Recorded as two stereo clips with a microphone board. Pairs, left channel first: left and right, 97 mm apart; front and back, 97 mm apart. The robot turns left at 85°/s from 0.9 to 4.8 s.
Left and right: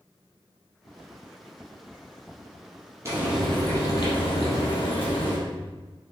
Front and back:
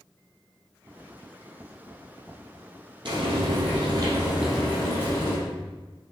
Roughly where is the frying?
Behind right.